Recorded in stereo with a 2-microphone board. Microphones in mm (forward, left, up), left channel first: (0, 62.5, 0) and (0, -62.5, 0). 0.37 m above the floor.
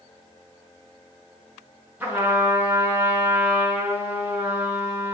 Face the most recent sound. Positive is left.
turn(degrees=-15)  # may be behind; listen again after turning